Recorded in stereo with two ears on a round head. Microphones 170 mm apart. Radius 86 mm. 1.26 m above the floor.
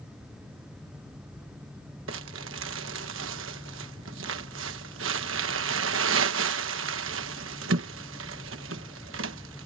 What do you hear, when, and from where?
2.1 s crumpling: 80° right